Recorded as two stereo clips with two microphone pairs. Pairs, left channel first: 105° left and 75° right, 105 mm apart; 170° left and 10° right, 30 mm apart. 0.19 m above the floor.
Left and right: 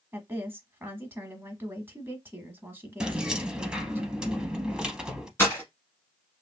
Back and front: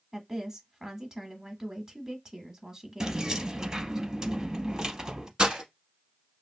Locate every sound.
0.1 s a woman speaking: 45° right, 1.0 m
3.0 s keys jangling: straight ahead, 0.7 m
5.4 s breaking glass: 45° left, 1.3 m